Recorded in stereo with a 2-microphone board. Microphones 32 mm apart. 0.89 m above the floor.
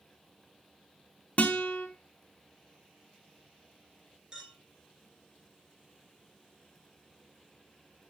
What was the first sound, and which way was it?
A guitar, 45° left (ahead or behind).